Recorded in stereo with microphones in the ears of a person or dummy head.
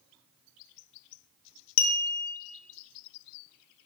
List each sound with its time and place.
1.8 s a clink: 70° left (ahead or behind), 0.6 m